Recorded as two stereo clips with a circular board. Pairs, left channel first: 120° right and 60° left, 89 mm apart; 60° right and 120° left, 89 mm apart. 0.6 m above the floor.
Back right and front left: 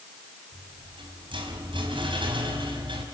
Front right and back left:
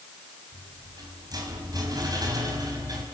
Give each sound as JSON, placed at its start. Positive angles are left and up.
{"t": 0.5, "sound": "a rattle", "azimuth_deg": 75, "distance_m": 5.0}